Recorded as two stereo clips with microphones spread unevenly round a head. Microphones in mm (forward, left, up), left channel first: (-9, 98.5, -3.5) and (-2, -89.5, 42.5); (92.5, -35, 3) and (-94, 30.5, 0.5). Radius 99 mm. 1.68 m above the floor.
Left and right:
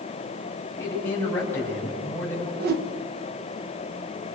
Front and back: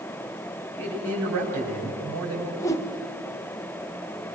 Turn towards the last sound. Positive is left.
turn(degrees=-95)